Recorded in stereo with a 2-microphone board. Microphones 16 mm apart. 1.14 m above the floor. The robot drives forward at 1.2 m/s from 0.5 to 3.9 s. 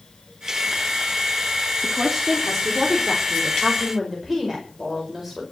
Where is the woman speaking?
10° right (ahead or behind), 3 m; by 5.4 s 5° right (ahead or behind), 5 m.